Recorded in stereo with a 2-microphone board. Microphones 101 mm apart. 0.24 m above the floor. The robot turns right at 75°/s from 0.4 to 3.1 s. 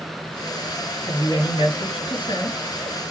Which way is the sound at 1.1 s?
25° left.